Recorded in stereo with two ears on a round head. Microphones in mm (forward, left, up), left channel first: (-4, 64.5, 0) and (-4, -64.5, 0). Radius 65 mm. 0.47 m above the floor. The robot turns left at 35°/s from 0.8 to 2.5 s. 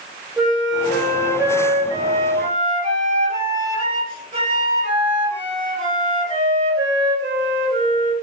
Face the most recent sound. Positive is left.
turn(degrees=-60)